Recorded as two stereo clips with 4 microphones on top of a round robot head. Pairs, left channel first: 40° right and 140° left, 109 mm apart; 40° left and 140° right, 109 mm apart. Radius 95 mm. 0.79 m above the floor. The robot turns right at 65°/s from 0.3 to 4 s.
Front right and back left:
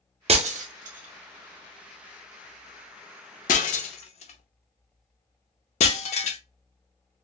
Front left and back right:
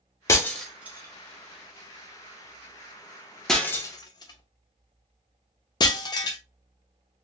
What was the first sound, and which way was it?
Breaking glass, 105° left.